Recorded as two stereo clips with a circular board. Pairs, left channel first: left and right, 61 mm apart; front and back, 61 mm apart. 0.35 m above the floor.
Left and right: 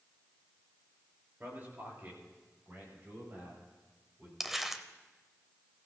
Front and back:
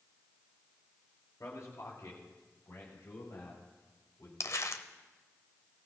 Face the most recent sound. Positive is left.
turn(degrees=-5)